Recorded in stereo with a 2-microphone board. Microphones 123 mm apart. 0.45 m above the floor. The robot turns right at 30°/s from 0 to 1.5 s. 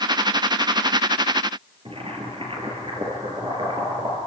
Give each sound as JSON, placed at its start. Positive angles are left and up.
{"t": 1.9, "sound": "boiling", "side_deg": -45, "distance_m": 5.0}